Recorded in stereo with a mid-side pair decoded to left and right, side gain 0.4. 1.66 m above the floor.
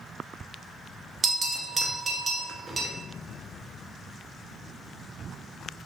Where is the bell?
45° right, 0.6 m.